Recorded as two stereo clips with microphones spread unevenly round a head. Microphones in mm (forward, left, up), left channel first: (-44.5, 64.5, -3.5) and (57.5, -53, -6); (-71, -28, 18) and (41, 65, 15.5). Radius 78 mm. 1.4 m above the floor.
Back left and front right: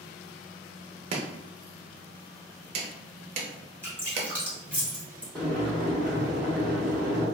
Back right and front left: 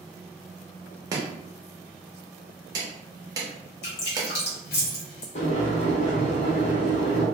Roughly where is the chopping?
Ahead.